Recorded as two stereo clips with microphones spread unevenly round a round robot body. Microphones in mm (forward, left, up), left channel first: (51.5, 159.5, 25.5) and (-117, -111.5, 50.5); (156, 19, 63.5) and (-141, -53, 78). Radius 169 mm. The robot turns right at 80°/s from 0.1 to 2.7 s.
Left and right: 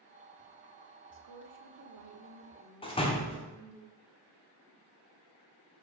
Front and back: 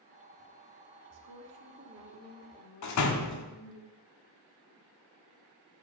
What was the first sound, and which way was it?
A woman speaking, 160° right.